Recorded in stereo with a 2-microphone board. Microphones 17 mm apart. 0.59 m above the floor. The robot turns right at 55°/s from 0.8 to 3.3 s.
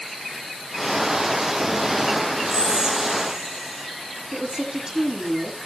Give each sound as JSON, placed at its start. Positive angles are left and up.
{"t": 2.5, "sound": "whispering", "azimuth_deg": -55, "distance_m": 6.0}
{"t": 4.3, "sound": "a woman speaking", "side_deg": -45, "distance_m": 6.5}